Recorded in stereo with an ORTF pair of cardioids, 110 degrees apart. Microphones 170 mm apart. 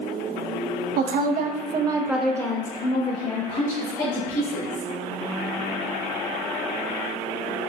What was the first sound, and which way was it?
A woman speaking, 65° right.